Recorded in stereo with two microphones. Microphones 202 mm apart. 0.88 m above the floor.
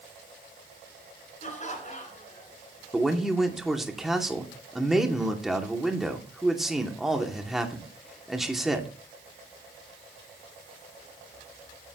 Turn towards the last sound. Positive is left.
turn(degrees=0)  # may be behind; listen again after turning